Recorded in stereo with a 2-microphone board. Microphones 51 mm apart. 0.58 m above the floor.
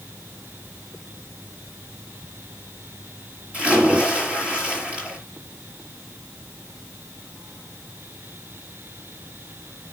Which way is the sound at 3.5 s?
20° right (ahead or behind).